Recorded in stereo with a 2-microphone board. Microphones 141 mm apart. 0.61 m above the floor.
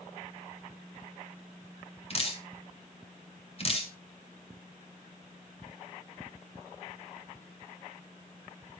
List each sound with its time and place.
2.1 s dripping: 40° left (ahead or behind), 2.5 m